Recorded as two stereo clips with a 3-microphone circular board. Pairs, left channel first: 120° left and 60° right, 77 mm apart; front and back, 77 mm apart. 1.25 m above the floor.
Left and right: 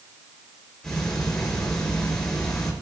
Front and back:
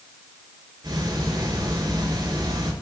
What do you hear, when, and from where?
0.8 s ticking: 155° right, 4 m